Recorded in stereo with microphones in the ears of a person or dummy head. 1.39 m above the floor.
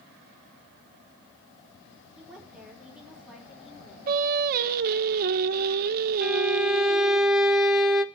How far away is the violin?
About 0.6 m.